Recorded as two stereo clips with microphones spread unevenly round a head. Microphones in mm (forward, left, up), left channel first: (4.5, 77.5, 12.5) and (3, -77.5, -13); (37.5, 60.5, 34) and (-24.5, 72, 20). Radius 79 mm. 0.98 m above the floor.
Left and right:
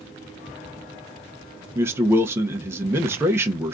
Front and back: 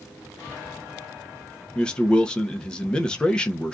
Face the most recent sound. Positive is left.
turn(degrees=-100)